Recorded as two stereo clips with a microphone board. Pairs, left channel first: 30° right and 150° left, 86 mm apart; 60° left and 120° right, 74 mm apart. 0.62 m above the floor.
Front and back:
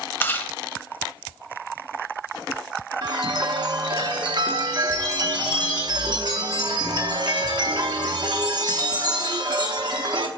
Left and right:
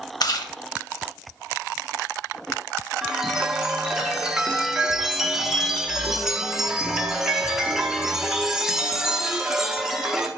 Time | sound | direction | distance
0.2 | chewing | 35° left | 0.8 m
3.0 | a chime | 160° left | 0.9 m